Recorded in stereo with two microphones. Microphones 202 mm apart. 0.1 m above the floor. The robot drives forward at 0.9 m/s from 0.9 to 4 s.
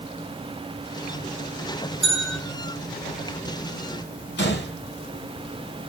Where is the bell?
75° right (ahead or behind), 6 m.